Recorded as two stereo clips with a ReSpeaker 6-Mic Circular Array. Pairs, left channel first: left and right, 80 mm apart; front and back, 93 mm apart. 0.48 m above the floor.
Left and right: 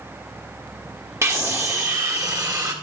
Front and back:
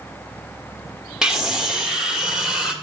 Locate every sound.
1.2 s a scream: 100° right, 1.5 m